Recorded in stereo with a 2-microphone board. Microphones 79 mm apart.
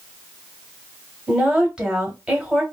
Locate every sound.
1.3 s a woman speaking: 10° right (ahead or behind), 1.3 m